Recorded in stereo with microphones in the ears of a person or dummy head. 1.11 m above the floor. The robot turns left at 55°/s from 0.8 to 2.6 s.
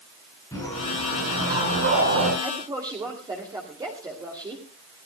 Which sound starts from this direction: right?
A woman speaking, at 2.4 s.